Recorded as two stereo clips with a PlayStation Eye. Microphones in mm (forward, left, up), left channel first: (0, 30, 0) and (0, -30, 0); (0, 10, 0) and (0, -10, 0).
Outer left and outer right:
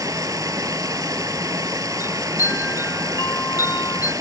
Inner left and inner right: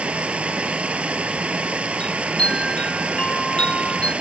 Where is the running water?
80° right, 1.0 m.